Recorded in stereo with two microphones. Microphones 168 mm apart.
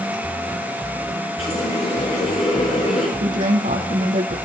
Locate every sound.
1.4 s a running tap: 40° left (ahead or behind), 6 m
3.2 s a woman speaking: 55° right (ahead or behind), 3.5 m